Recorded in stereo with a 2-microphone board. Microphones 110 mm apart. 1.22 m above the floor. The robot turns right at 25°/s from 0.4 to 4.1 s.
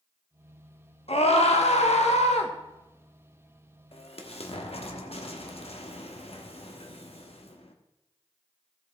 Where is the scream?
70° left, 1.4 m; by 2.5 s 105° left, 1.4 m.